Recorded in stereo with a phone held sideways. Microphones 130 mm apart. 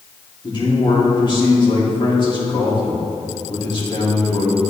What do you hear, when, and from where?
0.4 s a man speaking: 40° left (ahead or behind), 2.5 m